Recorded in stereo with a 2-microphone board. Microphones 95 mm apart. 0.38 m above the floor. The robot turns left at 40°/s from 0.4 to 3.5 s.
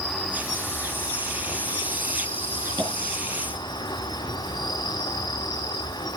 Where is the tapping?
60° right (ahead or behind), 5 m; by 2.9 s 55° right (ahead or behind), 5 m.